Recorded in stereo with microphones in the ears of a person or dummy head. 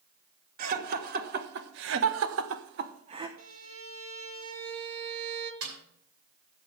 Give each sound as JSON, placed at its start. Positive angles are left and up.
{"t": 0.6, "sound": "laughter", "side_deg": -50, "distance_m": 2.5}
{"t": 3.4, "sound": "a violin", "side_deg": -85, "distance_m": 1.3}
{"t": 5.6, "sound": "a snare drum", "side_deg": -85, "distance_m": 5.5}